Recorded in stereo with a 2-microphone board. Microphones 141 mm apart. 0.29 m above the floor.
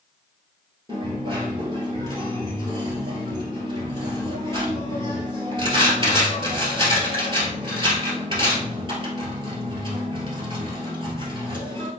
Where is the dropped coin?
35° right (ahead or behind), 1.6 m.